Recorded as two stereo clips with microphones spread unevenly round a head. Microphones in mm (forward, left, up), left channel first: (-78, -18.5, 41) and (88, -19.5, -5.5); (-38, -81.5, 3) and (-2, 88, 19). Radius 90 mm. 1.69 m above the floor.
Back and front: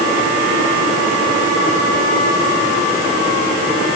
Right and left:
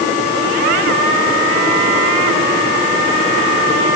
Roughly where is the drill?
No drill in this recording.